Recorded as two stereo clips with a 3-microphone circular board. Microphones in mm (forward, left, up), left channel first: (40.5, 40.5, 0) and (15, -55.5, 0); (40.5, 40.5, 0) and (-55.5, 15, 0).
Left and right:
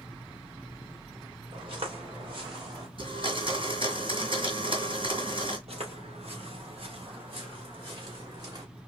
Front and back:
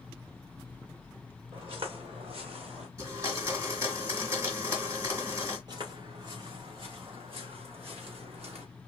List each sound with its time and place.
1.5 s footsteps: 135° right, 3.5 m; by 2.9 s 150° right, 3 m
3.0 s a blender: 115° right, 2.5 m
5.7 s footsteps: 120° right, 4.5 m; by 8.7 s 150° right, 4.5 m